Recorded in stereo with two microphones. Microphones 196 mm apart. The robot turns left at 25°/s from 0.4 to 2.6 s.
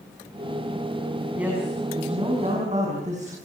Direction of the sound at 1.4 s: 5° right.